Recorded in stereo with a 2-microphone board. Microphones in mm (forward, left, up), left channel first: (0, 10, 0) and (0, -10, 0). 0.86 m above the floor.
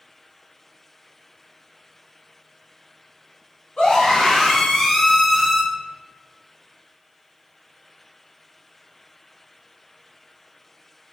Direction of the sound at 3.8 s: 50° left (ahead or behind).